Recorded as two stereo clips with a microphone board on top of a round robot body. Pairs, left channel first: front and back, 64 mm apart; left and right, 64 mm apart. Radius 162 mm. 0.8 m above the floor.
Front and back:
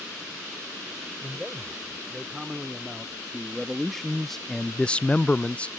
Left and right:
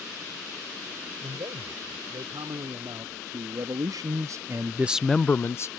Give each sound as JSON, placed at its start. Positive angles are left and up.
{"t": 1.2, "sound": "a man speaking", "azimuth_deg": -95}